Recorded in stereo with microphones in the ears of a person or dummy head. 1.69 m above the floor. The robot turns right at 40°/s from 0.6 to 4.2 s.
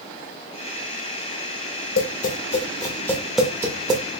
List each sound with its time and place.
2.0 s tapping: 55° left (ahead or behind), 0.7 m; by 4.0 s 30° right (ahead or behind), 0.7 m